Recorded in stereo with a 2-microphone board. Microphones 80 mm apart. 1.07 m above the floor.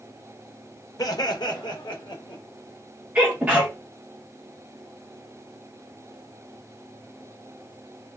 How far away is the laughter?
About 0.7 m.